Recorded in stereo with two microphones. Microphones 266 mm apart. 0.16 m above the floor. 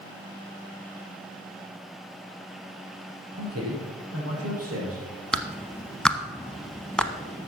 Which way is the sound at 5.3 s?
5° left (ahead or behind).